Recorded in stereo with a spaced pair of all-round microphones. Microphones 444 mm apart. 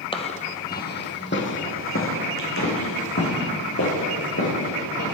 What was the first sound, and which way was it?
Footsteps, 10° left (ahead or behind).